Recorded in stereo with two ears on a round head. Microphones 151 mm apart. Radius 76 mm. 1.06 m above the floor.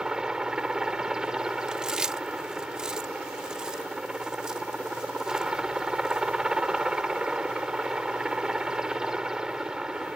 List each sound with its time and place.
0.0 s a helicopter: 5° right (ahead or behind)
1.7 s chewing: 5° right (ahead or behind)